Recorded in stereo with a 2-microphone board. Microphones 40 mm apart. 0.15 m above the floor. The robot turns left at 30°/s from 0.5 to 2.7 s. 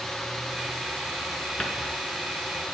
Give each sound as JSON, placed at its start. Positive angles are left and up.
{"t": 1.6, "sound": "a cupboard door", "side_deg": 20, "distance_m": 2.0}